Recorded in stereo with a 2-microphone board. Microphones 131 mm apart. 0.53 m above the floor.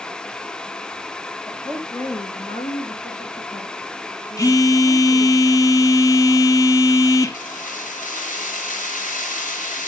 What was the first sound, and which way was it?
A woman speaking, 10° left (ahead or behind).